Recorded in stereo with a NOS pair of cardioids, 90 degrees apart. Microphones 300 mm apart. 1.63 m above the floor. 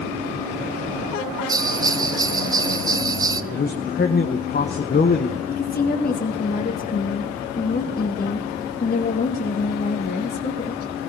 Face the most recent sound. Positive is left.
turn(degrees=30)